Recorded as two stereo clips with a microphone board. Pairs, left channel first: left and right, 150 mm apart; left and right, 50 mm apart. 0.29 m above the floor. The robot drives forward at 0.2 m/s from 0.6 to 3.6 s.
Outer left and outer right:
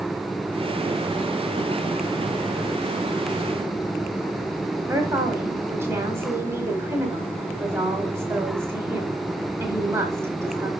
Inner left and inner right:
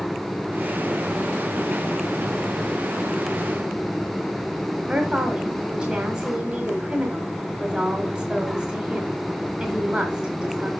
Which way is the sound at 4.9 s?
15° right (ahead or behind).